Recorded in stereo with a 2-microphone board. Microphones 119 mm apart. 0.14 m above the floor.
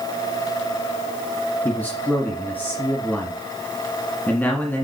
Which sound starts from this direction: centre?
A man speaking, at 1.6 s.